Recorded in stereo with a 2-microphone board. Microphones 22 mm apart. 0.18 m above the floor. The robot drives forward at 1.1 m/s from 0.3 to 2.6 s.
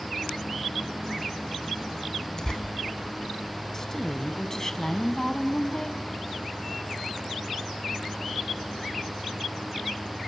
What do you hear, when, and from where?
2.4 s tearing paper: 30° left (ahead or behind), 1.4 m; by 2.6 s 35° left (ahead or behind), 1.3 m
3.7 s a woman speaking: 20° left (ahead or behind), 1.1 m